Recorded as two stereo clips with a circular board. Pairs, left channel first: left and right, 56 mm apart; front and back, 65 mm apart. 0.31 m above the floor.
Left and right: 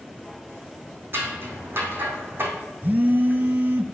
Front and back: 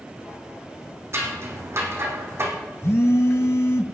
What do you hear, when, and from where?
1.1 s scissors: 135° right, 2.5 m
2.8 s a phone buzzing: 40° right, 0.7 m